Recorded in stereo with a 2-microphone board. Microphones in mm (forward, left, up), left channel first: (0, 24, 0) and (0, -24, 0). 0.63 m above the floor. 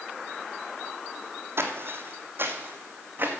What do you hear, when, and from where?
1.6 s footsteps: 60° right (ahead or behind), 1.4 m; by 3.3 s 45° right (ahead or behind), 2 m